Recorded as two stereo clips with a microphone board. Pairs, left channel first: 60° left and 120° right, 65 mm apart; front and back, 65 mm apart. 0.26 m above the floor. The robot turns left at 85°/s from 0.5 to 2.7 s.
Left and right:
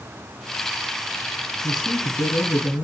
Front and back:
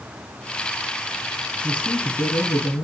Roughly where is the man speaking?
Ahead left.